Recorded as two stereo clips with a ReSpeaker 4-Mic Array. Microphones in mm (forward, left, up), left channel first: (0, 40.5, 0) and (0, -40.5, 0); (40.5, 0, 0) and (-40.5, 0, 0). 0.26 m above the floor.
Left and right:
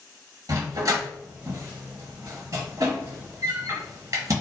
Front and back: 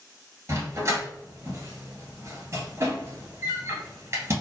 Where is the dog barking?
130° right, 1.2 m.